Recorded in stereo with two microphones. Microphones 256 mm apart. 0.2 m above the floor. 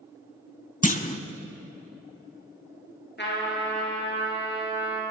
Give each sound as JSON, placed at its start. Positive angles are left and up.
{"t": 0.8, "sound": "a clunk", "side_deg": 30, "distance_m": 0.6}
{"t": 3.2, "sound": "a trumpet", "side_deg": 45, "distance_m": 3.0}